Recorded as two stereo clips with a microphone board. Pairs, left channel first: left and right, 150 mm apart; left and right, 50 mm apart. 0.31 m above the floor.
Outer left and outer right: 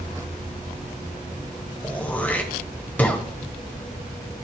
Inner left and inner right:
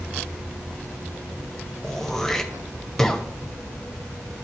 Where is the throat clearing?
10° left (ahead or behind), 1.4 m.